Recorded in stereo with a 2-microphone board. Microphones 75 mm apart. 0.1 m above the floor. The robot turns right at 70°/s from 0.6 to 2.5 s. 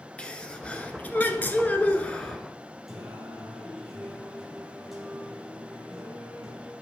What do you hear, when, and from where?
0.2 s a sneeze: 15° left (ahead or behind), 1.1 m; by 2.4 s 10° left (ahead or behind), 1.1 m
2.9 s singing: centre (ahead or behind), 4 m